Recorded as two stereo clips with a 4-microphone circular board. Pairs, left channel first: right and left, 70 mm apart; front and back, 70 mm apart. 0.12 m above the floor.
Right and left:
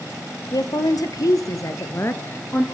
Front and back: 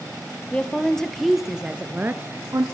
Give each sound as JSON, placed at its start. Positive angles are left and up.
{"t": 0.5, "sound": "a woman speaking", "azimuth_deg": -70, "distance_m": 2.5}